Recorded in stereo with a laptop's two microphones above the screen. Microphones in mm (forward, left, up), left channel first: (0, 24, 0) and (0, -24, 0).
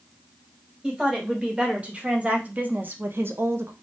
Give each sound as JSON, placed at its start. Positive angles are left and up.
{"t": 0.8, "sound": "a woman speaking", "side_deg": -20, "distance_m": 1.7}